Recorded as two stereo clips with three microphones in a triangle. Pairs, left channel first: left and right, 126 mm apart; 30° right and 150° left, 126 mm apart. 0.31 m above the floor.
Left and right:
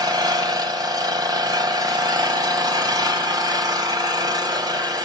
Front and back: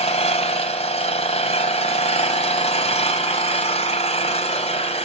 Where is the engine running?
40° right, 1.9 m.